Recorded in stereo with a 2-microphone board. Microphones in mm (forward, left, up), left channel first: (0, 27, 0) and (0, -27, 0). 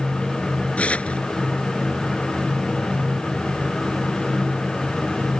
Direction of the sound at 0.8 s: 25° left (ahead or behind).